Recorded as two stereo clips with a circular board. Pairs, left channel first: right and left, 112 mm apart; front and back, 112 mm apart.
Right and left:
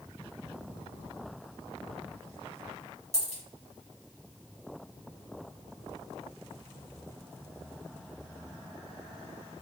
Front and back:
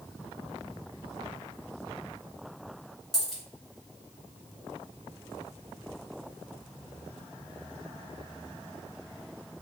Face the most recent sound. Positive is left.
turn(degrees=90)